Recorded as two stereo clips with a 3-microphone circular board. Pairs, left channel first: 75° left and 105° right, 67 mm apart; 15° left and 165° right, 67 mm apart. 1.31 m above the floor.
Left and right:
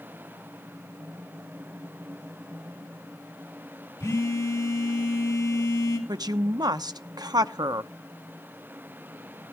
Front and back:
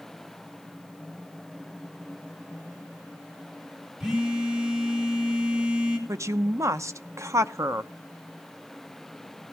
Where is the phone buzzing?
115° left, 4 m.